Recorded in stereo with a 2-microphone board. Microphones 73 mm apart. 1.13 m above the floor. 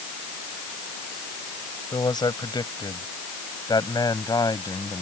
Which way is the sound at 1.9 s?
75° left (ahead or behind).